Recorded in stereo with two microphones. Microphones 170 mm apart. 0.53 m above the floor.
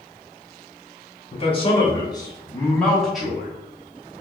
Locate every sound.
1.3 s a man speaking: 35° left (ahead or behind), 1.3 m; by 3.5 s 10° right (ahead or behind), 1.1 m